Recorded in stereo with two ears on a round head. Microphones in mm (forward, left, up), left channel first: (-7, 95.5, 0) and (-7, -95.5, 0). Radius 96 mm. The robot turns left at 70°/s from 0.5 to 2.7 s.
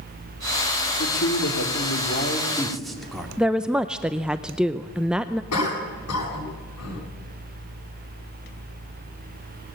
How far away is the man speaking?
About 3 m.